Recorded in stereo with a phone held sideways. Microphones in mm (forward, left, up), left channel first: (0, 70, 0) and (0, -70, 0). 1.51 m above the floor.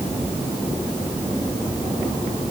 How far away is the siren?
I don't hear a siren.